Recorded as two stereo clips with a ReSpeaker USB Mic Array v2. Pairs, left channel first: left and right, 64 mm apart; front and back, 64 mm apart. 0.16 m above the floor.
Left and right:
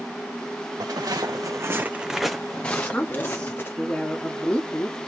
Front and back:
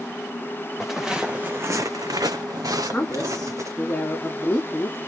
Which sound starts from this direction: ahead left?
A woman speaking, at 2.7 s.